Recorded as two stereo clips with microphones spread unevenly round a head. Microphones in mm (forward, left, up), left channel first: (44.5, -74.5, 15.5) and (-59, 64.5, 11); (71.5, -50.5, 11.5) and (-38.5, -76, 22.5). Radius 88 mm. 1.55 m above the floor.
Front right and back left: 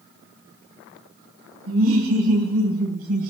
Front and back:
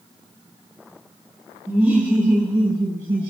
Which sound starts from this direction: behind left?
Laughter, at 1.7 s.